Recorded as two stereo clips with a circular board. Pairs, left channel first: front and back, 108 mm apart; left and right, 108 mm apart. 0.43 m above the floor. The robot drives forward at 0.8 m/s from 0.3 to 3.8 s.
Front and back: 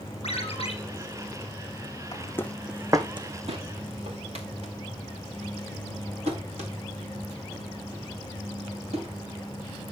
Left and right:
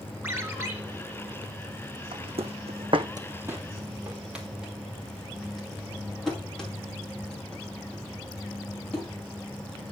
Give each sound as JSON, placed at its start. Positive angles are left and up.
{"t": 0.2, "sound": "a ringtone", "azimuth_deg": -20, "distance_m": 3.5}
{"t": 2.1, "sound": "footsteps", "azimuth_deg": -55, "distance_m": 1.5}